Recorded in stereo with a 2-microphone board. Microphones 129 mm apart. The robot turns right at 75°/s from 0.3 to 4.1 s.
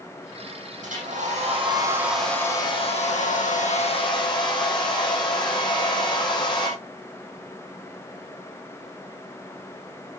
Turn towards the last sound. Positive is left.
turn(degrees=140)